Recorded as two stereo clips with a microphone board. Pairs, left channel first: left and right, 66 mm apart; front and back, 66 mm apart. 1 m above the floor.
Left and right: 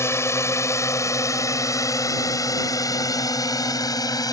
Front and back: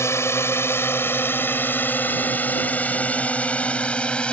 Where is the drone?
45° left; by 4.3 s 75° left.